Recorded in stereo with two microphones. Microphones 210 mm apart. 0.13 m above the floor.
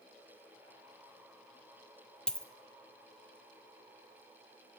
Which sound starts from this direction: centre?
A dropped coin, at 2.3 s.